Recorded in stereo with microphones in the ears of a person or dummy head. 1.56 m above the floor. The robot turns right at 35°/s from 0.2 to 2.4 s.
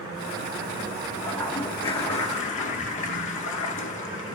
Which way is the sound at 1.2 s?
15° left.